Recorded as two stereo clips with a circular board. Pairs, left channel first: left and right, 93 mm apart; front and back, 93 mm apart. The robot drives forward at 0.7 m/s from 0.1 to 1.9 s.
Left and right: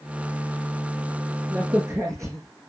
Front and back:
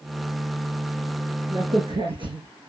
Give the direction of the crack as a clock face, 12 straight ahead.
5 o'clock.